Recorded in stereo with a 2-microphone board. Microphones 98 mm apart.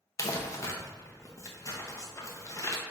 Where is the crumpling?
30° left (ahead or behind), 0.5 m.